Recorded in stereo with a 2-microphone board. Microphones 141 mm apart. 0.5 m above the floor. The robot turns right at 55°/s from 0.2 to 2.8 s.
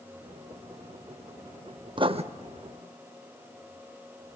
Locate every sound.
2.0 s writing: 35° right (ahead or behind), 0.6 m; by 2.2 s 50° right (ahead or behind), 0.6 m